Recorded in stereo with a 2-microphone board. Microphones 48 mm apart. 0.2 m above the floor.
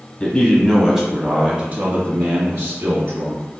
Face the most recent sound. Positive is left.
turn(degrees=-60)  # may be behind; listen again after turning